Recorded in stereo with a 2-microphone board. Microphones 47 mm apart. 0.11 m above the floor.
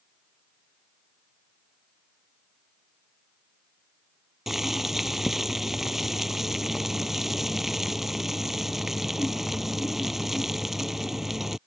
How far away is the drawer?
I don't hear a drawer.